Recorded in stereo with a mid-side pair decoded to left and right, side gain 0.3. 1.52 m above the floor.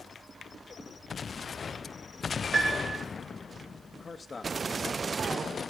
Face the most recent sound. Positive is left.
turn(degrees=45)